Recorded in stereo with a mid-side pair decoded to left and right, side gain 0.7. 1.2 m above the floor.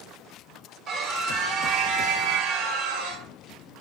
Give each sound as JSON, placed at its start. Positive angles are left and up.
{"t": 0.9, "sound": "a scream", "azimuth_deg": -35, "distance_m": 3.5}